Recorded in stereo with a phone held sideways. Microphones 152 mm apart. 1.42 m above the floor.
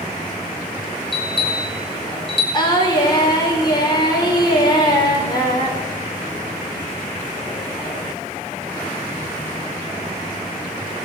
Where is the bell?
35° left (ahead or behind), 6 m.